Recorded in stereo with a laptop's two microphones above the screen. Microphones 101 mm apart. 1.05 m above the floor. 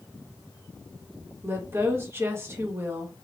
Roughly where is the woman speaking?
Right.